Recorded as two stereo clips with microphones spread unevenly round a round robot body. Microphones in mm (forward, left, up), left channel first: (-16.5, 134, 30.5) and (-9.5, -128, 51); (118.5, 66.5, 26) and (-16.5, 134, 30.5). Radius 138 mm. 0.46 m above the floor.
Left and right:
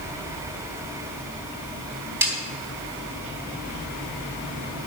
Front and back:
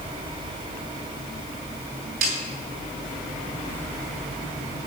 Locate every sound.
2.2 s a snare drum: 170° right, 4 m